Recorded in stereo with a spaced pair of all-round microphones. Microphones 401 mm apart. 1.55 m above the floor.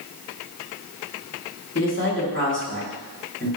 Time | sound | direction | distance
1.8 | a man speaking | 30° left (ahead or behind) | 1.5 m